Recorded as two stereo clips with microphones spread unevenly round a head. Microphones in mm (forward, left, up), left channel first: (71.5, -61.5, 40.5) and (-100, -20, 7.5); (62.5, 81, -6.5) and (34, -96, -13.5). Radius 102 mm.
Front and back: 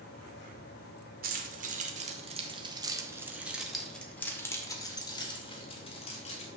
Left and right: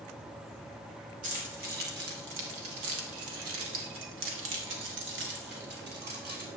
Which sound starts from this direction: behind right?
Keys jangling, at 1.2 s.